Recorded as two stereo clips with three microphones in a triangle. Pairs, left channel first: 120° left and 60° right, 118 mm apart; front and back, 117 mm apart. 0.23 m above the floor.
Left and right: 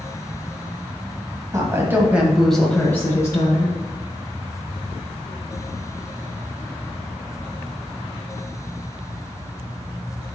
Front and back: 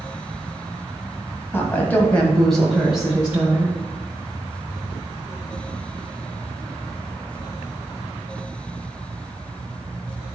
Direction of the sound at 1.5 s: 45° right.